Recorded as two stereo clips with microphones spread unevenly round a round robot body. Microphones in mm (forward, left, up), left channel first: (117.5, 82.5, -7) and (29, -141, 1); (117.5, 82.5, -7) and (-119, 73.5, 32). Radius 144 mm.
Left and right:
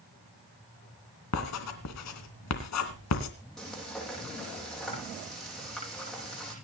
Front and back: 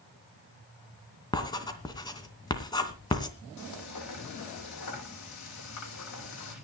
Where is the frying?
20° right, 9 m.